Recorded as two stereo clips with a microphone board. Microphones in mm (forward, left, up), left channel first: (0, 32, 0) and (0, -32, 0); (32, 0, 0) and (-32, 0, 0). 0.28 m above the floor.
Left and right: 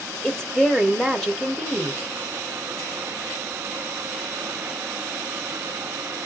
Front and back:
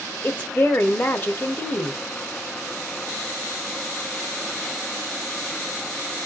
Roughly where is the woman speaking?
Ahead.